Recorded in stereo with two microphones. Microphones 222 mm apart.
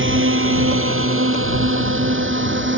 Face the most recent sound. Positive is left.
turn(degrees=-60)  # may be behind; listen again after turning